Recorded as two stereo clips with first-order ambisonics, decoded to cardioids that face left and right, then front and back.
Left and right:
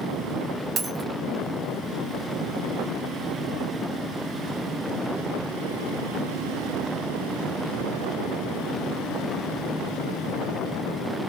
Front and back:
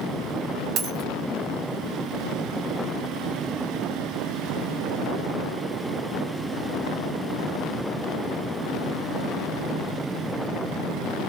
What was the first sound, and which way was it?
A dropped coin, 145° right.